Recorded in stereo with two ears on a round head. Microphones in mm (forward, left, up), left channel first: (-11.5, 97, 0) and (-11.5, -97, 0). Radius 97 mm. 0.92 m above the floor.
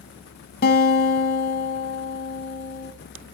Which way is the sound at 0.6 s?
45° left (ahead or behind).